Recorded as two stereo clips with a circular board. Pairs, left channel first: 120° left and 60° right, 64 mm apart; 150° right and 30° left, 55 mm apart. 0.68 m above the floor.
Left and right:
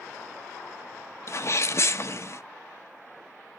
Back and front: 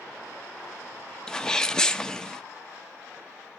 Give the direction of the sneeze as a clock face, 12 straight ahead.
8 o'clock.